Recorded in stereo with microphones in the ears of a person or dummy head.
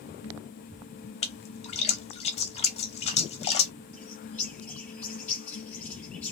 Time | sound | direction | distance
1.2 | a splash | 30° left (ahead or behind) | 0.6 m
3.9 | a bird | 10° left (ahead or behind) | 1.1 m